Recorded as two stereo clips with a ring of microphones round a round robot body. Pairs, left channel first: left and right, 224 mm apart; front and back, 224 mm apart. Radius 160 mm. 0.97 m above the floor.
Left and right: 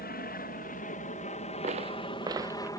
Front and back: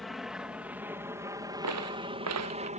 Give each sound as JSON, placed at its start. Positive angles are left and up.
{"t": 0.0, "sound": "an aircraft", "azimuth_deg": 90}
{"t": 1.6, "sound": "footsteps", "azimuth_deg": -160}